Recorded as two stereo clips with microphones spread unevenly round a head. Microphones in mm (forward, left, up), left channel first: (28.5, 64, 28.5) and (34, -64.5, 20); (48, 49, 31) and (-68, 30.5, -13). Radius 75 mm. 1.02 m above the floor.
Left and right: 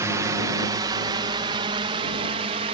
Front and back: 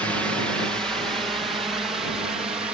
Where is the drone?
105° right; by 2.7 s 110° right.